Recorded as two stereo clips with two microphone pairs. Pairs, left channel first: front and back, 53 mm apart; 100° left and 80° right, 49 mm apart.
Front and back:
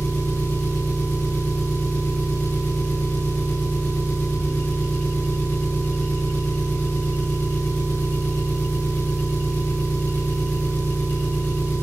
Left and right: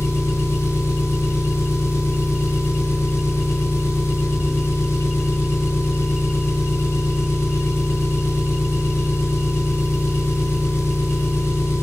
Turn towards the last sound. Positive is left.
turn(degrees=60)